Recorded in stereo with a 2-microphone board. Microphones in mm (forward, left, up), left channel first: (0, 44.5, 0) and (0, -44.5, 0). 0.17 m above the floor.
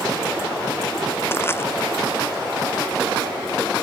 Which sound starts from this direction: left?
Crushing, at 1.3 s.